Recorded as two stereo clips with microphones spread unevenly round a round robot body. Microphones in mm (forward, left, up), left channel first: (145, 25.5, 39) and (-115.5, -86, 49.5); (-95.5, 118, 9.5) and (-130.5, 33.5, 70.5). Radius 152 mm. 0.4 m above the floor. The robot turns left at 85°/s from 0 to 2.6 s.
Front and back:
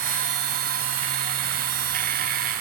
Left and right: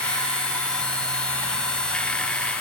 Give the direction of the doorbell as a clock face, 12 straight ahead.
No doorbell in this recording.